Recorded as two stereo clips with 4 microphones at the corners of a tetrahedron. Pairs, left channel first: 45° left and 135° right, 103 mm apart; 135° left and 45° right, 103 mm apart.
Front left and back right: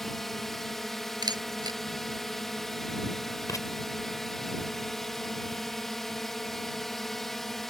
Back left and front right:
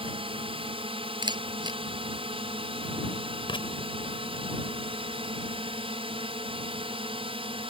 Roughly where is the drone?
Ahead right.